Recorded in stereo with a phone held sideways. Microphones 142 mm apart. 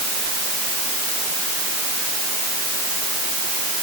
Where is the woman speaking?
No woman speaking in this recording.